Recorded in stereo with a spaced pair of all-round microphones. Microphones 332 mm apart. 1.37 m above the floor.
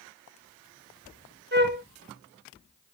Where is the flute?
30° right (ahead or behind), 1.0 m.